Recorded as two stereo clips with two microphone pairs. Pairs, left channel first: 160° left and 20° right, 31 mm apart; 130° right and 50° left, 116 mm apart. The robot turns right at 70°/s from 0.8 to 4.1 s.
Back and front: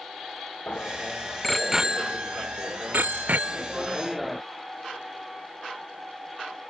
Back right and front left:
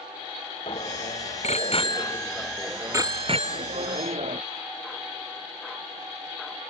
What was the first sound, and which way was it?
A bicycle bell, 165° right.